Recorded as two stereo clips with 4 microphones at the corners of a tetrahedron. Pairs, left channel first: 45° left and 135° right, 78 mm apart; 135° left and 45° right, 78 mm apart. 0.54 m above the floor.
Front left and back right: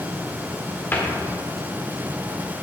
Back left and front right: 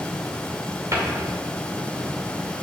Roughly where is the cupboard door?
Ahead.